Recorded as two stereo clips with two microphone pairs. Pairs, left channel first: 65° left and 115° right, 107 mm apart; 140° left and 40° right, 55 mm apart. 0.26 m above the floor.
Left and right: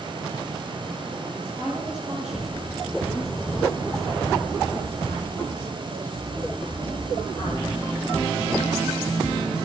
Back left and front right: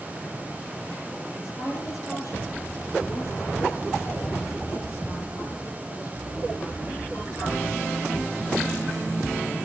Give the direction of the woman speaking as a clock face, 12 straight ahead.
6 o'clock.